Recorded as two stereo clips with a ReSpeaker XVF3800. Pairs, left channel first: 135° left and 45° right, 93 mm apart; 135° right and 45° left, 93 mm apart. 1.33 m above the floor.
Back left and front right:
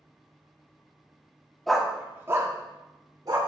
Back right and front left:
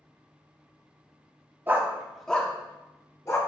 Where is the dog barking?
55° left, 0.8 m; by 3.4 s 80° right, 1.6 m.